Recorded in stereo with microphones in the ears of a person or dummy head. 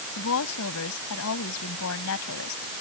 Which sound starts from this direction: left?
A woman speaking, at 0.2 s.